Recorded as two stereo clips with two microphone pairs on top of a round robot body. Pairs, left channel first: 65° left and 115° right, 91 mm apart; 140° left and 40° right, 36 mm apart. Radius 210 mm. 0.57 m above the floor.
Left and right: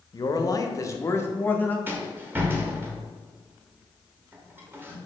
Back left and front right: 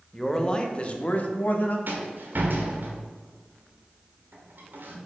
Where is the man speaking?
70° left, 1.1 m; by 1.8 s 130° left, 1.3 m.